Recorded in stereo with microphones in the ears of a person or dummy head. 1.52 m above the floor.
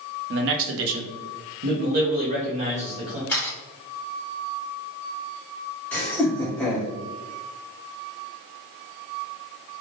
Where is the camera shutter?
15° left (ahead or behind), 2.0 m.